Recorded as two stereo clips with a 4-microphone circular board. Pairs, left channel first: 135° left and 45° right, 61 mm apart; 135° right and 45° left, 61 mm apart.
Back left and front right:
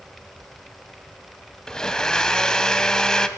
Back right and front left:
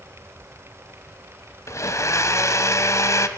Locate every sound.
1.7 s a blender: 145° right, 1.5 m